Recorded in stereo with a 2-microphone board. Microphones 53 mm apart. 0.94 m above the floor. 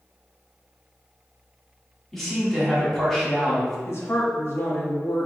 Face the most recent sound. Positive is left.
turn(degrees=55)  # may be behind; listen again after turning